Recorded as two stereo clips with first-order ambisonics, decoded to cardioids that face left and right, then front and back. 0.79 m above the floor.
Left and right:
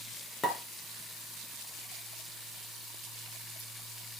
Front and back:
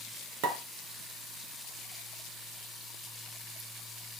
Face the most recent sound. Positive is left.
turn(degrees=165)